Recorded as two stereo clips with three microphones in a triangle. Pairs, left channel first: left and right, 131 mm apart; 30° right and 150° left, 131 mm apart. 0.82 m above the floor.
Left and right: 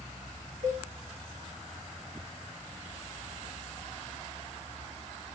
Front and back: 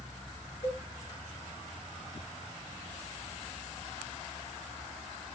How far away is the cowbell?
About 1.2 m.